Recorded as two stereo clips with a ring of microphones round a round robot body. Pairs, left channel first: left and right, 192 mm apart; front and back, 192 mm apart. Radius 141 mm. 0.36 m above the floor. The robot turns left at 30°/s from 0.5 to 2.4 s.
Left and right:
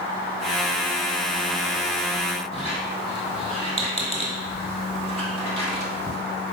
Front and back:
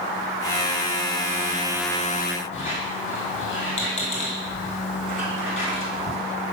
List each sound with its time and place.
2.5 s a squeak: straight ahead, 1.8 m